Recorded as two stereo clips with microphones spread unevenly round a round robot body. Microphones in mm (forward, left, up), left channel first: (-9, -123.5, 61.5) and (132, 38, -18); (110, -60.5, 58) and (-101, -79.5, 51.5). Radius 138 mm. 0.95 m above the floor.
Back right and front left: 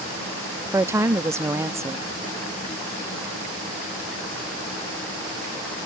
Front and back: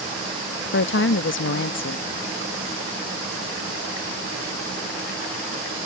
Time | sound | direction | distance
0.7 | a woman speaking | 20° right | ?